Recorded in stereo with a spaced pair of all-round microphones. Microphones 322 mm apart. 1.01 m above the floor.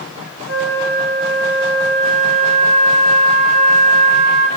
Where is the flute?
55° right (ahead or behind), 8.5 m.